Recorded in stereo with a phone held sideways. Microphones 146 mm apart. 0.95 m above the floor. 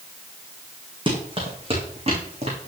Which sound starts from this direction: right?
Running footsteps, at 1.1 s.